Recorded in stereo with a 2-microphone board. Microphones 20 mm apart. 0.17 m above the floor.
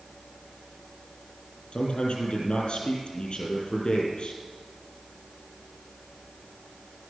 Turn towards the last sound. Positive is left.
turn(degrees=60)  # may be behind; listen again after turning